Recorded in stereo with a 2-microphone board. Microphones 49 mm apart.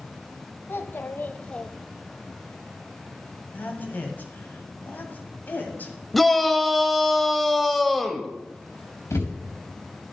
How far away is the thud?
About 4 m.